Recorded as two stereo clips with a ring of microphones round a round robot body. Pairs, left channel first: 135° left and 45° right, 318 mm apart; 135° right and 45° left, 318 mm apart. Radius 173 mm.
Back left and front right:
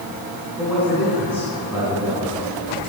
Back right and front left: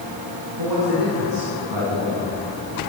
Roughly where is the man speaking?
Ahead left.